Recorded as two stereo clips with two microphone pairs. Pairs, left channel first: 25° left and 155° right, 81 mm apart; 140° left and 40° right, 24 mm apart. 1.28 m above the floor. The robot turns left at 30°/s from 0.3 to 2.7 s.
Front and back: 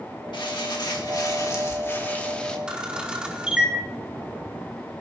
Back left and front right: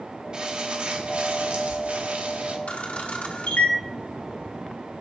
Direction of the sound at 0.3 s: 10° left.